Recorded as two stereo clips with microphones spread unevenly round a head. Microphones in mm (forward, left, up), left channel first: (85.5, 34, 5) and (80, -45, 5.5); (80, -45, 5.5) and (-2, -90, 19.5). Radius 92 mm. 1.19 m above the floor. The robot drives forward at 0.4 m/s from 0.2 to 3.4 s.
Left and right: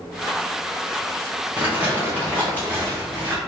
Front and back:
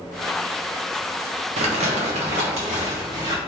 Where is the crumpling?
170° right, 0.6 m; by 3.4 s 175° right, 1.4 m.